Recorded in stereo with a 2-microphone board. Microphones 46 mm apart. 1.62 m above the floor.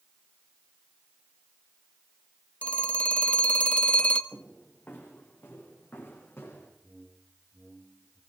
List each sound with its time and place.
2.6 s a phone ringing: 30° left (ahead or behind), 1.4 m
4.3 s footsteps: 50° left (ahead or behind), 7.5 m; by 6.7 s 60° left (ahead or behind), 7.5 m
6.8 s a whoosh: 50° left (ahead or behind), 3 m